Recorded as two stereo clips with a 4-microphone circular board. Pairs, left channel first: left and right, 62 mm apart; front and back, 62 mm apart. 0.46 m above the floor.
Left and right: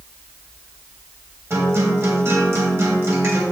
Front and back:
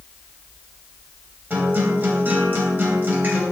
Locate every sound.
1.5 s a guitar: 130° right, 3 m